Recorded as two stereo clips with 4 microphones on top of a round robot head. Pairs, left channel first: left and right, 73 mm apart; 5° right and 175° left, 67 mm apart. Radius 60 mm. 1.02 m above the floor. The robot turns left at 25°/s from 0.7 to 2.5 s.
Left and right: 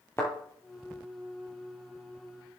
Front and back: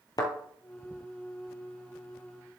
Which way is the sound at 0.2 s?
20° left.